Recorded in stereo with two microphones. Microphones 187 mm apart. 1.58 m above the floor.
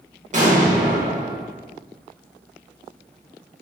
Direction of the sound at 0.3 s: 40° right (ahead or behind).